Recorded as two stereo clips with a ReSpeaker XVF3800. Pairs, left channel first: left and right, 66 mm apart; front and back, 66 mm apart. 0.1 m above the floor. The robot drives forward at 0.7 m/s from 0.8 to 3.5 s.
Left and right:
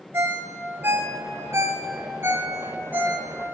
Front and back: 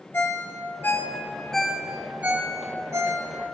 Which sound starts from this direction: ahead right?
A ringtone, at 0.1 s.